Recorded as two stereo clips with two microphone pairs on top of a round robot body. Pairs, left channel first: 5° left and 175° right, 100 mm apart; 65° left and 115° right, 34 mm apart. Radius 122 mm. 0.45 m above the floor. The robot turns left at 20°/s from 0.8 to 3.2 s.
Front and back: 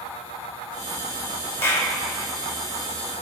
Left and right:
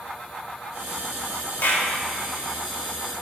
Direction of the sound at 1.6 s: 65° left.